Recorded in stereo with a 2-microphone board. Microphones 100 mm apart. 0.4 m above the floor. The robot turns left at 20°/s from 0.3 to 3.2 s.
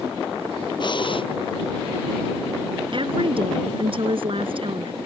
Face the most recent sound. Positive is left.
turn(degrees=-55)  # may be behind; listen again after turning